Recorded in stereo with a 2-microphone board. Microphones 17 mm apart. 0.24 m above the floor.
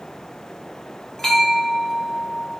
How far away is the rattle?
No rattle in this recording.